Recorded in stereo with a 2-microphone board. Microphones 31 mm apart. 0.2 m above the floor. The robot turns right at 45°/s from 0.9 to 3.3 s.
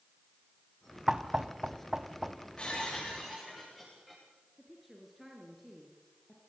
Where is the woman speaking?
Centre (ahead or behind), 3 m.